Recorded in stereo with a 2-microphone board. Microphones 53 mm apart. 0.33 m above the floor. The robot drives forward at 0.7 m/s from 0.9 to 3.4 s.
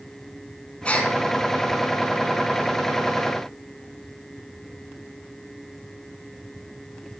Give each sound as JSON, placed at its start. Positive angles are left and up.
{"t": 0.8, "sound": "a gasp", "side_deg": 25, "distance_m": 2.5}